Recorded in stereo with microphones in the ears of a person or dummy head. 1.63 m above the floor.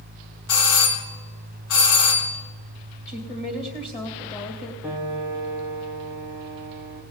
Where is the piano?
5° right (ahead or behind), 0.6 m.